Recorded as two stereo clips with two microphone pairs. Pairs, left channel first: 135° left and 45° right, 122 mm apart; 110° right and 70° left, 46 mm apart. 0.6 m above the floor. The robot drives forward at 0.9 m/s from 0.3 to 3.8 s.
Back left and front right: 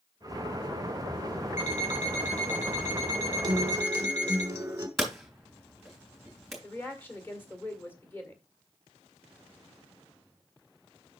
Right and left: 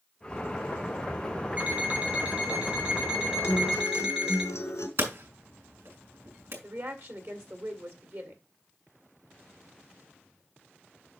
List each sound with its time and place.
1.6 s an alarm clock: 130° left, 3.5 m; by 4.4 s 145° left, 5 m
3.4 s a guitar: 100° right, 1.1 m; by 4.9 s 115° right, 1.2 m
5.0 s hammering: 40° left, 3 m
6.6 s a woman speaking: 60° left, 1.8 m